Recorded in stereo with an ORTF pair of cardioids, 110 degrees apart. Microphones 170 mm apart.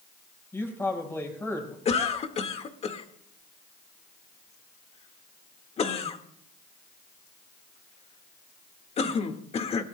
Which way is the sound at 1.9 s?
40° left.